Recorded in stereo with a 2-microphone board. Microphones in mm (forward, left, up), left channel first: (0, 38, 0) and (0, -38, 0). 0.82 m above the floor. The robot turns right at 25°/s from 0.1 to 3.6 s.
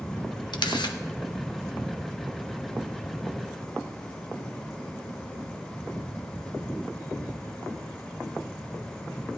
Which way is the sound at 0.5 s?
75° left (ahead or behind).